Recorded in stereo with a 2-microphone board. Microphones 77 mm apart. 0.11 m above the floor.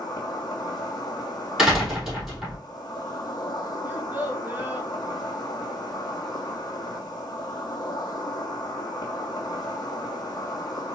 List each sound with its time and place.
0.0 s an insect: 60° left (ahead or behind), 1.2 m
1.6 s a door slam: 10° right (ahead or behind), 3 m
3.9 s a child speaking: 25° right (ahead or behind), 0.9 m